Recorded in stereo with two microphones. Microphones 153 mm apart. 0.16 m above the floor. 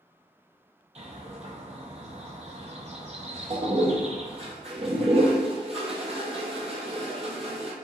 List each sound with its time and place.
0.9 s a bird: 45° right (ahead or behind), 0.7 m
3.5 s a toilet flushing: 45° right (ahead or behind), 0.8 m